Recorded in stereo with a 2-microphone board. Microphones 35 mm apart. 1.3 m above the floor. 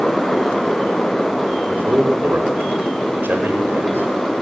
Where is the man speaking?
85° right, 5 m.